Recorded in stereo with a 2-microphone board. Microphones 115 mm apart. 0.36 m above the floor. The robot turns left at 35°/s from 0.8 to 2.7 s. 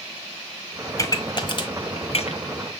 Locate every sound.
1.0 s a pop: 25° left (ahead or behind), 1.4 m; by 2.4 s 65° left (ahead or behind), 1.4 m